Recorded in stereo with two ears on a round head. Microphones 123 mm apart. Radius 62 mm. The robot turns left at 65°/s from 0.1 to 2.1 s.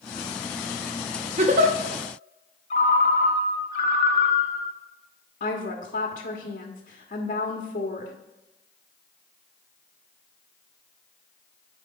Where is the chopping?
No chopping in this recording.